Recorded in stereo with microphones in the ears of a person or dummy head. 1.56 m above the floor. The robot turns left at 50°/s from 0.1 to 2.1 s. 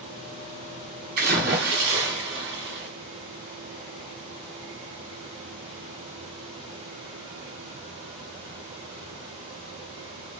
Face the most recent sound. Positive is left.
turn(degrees=-110)